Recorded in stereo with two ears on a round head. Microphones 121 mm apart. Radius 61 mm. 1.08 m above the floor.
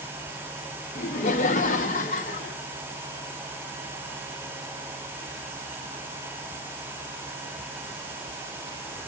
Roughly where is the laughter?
Left.